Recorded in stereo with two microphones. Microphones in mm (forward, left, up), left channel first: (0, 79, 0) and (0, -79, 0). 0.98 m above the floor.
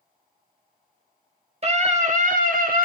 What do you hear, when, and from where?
1.6 s a scream: 40° right (ahead or behind), 1.6 m; by 2.9 s 65° right (ahead or behind), 1.9 m